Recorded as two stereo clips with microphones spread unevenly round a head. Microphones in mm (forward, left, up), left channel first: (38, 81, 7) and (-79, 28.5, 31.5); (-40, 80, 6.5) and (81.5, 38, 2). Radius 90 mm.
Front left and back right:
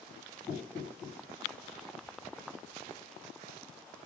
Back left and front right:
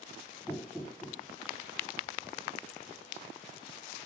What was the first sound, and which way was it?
Knocking, 60° left.